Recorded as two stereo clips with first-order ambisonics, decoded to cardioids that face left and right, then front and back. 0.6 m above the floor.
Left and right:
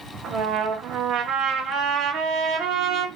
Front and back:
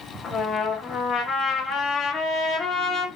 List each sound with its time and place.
0.2 s a trumpet: 65° right, 1.2 m